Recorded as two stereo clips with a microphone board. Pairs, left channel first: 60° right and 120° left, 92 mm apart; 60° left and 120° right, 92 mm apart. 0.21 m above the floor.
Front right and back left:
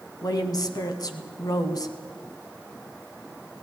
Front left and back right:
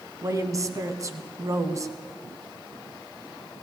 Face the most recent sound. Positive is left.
turn(degrees=-85)